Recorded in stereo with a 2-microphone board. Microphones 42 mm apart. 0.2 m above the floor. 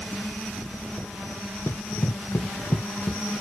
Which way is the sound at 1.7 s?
80° left.